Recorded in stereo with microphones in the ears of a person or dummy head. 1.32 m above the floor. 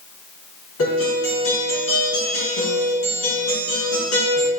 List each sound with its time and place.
0.8 s a guitar: 80° left, 3.5 m